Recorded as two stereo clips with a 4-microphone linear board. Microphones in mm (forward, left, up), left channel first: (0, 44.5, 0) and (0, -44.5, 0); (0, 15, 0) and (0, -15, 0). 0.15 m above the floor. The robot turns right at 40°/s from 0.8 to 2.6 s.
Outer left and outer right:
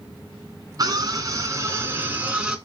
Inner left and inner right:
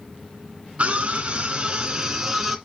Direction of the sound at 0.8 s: 80° right.